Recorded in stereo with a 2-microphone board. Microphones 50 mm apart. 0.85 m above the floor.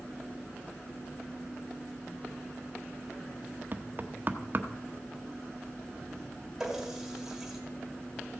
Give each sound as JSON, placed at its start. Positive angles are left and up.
{"t": 3.7, "sound": "knocking", "side_deg": -40, "distance_m": 0.8}
{"t": 6.6, "sound": "a running tap", "side_deg": -10, "distance_m": 2.0}